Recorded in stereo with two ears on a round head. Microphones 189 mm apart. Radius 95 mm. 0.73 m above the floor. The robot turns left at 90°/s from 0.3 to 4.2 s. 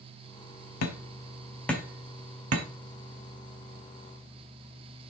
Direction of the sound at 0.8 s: 80° left.